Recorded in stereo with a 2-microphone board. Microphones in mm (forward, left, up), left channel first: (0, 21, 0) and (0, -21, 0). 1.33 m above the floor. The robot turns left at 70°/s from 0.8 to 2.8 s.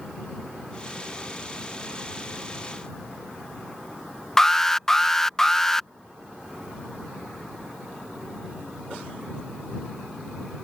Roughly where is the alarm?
Centre.